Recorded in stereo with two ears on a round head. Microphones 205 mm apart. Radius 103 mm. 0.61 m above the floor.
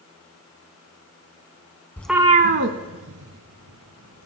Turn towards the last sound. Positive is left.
turn(degrees=-70)  # may be behind; listen again after turning